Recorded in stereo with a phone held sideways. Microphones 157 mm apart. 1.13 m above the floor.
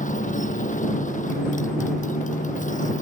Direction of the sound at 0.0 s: 55° left (ahead or behind).